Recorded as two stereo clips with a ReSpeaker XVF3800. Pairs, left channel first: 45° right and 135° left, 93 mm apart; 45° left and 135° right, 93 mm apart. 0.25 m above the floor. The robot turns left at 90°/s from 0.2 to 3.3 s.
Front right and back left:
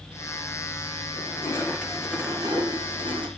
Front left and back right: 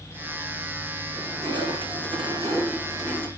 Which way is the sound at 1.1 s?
65° right.